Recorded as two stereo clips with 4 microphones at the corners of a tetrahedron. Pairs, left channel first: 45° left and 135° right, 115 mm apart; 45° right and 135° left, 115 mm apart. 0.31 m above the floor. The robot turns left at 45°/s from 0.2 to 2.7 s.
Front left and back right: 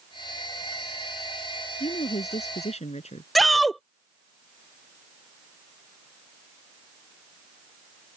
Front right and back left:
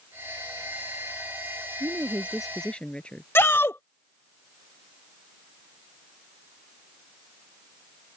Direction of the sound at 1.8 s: 75° left.